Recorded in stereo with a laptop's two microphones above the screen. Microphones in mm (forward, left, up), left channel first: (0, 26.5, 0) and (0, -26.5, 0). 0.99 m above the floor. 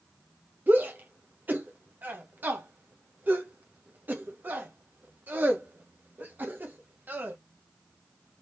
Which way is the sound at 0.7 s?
35° right (ahead or behind).